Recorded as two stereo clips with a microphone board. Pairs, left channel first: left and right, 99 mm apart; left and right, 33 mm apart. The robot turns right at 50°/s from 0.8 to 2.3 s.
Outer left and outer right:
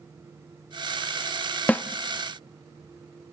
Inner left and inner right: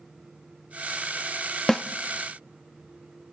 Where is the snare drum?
15° left (ahead or behind), 0.6 m; by 1.8 s 20° left (ahead or behind), 0.6 m.